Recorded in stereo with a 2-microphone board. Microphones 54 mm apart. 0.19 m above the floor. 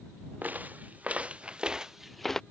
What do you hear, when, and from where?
0.4 s footsteps: 30° right (ahead or behind); by 2.4 s 10° left (ahead or behind)